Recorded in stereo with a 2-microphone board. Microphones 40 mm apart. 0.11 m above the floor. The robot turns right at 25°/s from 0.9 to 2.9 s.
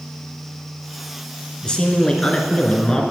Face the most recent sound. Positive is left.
turn(degrees=20)  # may be behind; listen again after turning